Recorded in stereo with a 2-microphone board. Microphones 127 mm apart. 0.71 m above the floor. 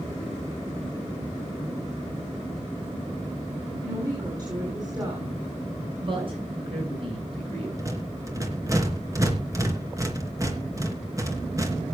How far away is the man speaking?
About 9.5 m.